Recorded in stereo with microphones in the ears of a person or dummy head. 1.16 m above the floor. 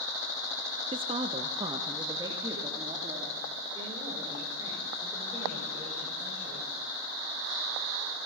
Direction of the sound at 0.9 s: 25° right (ahead or behind).